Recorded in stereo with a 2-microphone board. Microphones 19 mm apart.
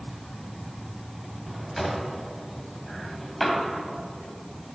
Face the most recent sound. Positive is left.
turn(degrees=5)  # may be behind; listen again after turning